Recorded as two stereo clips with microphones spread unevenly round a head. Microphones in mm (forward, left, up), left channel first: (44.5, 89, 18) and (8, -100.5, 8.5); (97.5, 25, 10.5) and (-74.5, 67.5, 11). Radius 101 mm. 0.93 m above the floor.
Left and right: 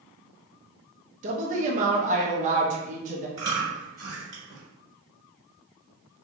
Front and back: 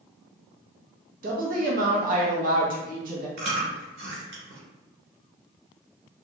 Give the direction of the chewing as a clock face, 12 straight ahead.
6 o'clock.